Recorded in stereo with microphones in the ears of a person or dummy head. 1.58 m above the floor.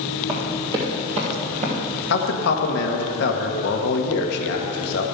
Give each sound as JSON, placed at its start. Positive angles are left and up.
{"t": 0.3, "sound": "running footsteps", "side_deg": -25, "distance_m": 2.5}
{"t": 2.1, "sound": "a man speaking", "side_deg": 65, "distance_m": 1.6}